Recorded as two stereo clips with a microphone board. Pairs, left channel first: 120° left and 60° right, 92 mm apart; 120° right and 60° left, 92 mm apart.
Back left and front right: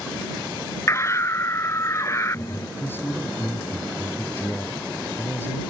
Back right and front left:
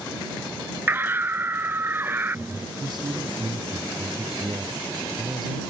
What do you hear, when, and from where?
0.9 s a scream: 105° left
2.8 s a man speaking: 60° left